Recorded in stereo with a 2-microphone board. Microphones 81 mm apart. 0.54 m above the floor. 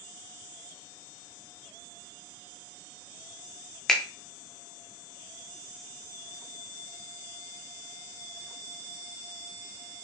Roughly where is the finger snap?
Centre.